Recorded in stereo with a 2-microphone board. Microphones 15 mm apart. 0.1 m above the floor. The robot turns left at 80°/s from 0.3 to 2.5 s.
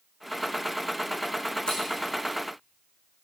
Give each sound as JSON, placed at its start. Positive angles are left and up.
{"t": 1.7, "sound": "scissors", "side_deg": 55, "distance_m": 4.5}